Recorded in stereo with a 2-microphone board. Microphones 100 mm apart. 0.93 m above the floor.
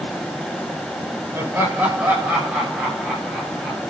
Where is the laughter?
20° right (ahead or behind), 5 m; by 3.8 s 5° right (ahead or behind), 8 m.